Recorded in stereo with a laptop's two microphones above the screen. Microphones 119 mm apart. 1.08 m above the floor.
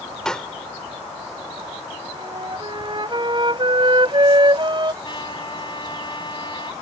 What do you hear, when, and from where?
0.2 s a pop: 5° left (ahead or behind)
2.1 s a flute: 45° right (ahead or behind)
5.0 s a trumpet: 40° left (ahead or behind)